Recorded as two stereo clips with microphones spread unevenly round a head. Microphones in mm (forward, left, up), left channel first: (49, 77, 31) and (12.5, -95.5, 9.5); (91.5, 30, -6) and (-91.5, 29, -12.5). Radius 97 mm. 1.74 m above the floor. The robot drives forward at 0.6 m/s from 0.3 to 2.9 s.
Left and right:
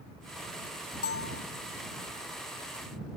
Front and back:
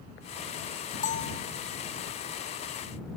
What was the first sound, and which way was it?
A bell, 50° left.